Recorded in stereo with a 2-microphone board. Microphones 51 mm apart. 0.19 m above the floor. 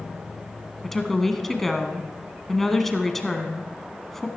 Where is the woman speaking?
5° left (ahead or behind), 1.3 m.